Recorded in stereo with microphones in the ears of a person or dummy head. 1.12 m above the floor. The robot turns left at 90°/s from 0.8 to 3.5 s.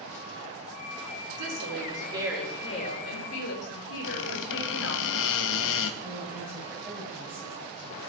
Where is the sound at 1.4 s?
90° right, 3 m; by 5.0 s 80° left, 3 m.